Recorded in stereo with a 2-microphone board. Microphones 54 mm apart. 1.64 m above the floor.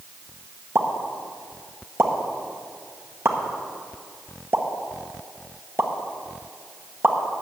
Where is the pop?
45° right (ahead or behind), 1.2 m.